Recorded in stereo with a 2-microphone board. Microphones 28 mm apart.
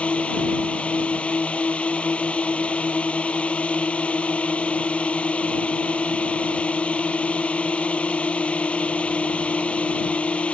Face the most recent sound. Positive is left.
turn(degrees=55)  # may be behind; listen again after turning